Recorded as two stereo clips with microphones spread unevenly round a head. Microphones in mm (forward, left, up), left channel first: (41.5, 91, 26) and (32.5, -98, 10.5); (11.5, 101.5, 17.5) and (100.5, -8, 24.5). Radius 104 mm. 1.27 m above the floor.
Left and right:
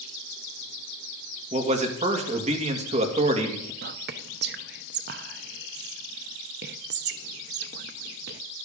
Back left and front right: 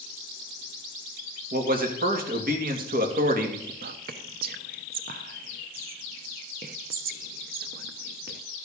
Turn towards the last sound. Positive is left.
turn(degrees=-65)